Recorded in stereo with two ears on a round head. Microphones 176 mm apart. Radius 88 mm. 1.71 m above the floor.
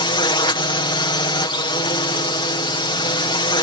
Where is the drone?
25° left (ahead or behind).